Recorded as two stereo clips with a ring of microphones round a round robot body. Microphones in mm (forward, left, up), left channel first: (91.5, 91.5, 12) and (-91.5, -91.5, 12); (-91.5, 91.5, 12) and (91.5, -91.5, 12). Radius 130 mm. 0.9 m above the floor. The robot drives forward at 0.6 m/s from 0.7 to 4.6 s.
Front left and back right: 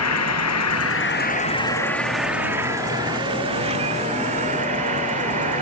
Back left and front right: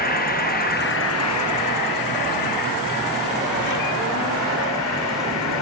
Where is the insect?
75° left; by 5.6 s 160° left.